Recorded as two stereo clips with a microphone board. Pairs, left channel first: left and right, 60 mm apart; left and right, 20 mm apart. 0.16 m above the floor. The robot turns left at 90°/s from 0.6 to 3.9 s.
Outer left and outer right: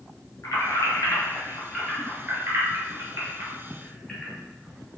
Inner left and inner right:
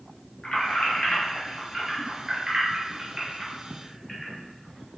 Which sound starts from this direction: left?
Keys jangling, at 0.4 s.